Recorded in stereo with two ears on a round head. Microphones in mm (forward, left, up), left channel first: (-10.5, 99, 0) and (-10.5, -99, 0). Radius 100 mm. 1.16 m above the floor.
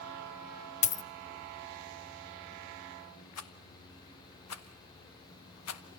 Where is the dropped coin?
30° left (ahead or behind), 0.8 m.